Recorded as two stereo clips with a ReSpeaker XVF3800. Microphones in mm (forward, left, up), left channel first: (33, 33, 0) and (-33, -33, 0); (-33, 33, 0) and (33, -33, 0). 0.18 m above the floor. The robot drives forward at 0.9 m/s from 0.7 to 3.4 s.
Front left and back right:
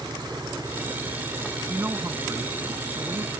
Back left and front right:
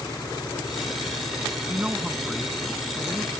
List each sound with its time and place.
0.0 s an engine running: straight behind
1.7 s a man speaking: 90° right; by 3.3 s 160° right